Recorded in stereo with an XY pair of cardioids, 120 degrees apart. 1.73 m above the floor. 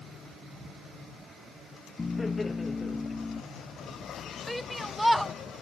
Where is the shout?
Straight ahead.